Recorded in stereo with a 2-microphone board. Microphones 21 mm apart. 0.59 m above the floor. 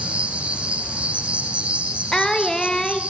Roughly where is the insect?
Right.